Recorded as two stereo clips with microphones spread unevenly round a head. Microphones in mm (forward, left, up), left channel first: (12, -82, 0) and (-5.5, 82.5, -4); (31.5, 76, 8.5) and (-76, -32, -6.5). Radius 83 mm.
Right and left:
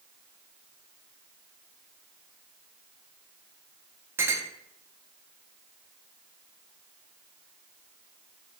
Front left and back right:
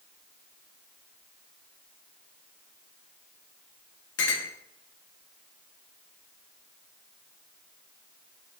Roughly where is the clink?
Ahead.